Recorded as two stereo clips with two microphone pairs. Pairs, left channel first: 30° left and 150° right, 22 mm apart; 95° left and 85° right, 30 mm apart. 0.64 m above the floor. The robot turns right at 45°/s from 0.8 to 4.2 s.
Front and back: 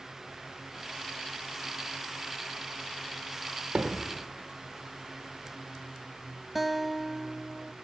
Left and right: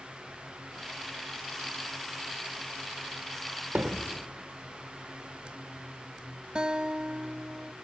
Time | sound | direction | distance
3.8 | hammering | 115° right | 1.2 m
6.5 | a guitar | 75° right | 0.5 m